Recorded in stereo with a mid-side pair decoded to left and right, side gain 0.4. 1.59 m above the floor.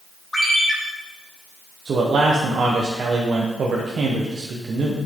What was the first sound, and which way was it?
A ringtone, 20° left.